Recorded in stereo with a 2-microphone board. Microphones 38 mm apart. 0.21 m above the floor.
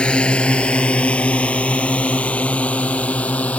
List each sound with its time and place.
0.0 s a drone: 25° left (ahead or behind); by 3.6 s 35° left (ahead or behind)